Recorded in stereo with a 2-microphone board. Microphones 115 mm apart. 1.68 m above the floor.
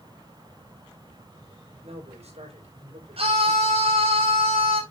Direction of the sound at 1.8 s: 65° right (ahead or behind).